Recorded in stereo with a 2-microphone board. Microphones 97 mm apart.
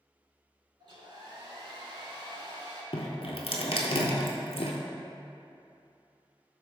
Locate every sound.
0.8 s a hair dryer: 60° right (ahead or behind), 0.7 m
2.9 s dripping: 80° left, 0.6 m